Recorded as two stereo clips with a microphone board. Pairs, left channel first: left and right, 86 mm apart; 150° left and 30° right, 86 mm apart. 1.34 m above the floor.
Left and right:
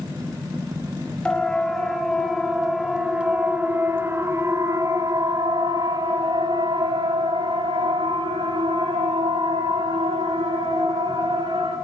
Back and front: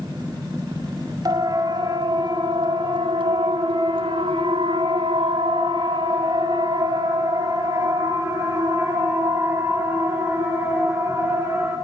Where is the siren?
10° left, 6 m; by 11.8 s 95° right, 11 m.